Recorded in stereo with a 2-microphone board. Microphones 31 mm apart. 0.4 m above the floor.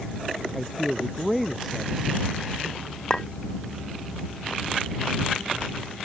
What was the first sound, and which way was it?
A man speaking, centre (ahead or behind).